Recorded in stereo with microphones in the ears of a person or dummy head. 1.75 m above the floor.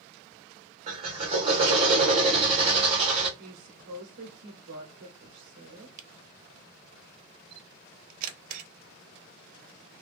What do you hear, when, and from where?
0.9 s a drill: 35° right (ahead or behind), 1.0 m
3.4 s a woman speaking: 70° right (ahead or behind), 0.8 m
6.0 s a camera shutter: 50° right (ahead or behind), 0.6 m